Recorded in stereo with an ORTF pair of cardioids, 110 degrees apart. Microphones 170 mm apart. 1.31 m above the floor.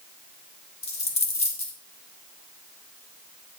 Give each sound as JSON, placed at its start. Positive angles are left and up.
{"t": 0.8, "sound": "a dropped coin", "azimuth_deg": 40, "distance_m": 2.5}